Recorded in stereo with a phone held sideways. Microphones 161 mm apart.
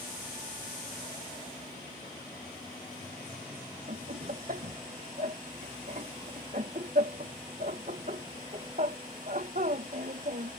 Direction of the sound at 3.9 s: 55° right (ahead or behind).